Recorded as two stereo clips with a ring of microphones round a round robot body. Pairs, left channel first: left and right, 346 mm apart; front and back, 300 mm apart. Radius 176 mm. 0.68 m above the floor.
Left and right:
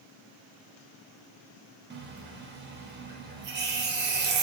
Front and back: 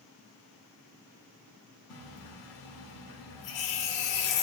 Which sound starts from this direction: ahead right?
A running tap, at 1.9 s.